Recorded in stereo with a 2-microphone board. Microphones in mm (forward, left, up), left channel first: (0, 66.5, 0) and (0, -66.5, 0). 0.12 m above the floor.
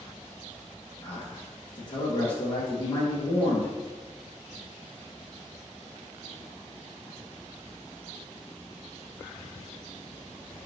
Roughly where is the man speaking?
Left.